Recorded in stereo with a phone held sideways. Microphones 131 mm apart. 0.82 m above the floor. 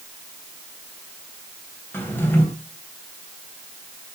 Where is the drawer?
15° left (ahead or behind), 3 m.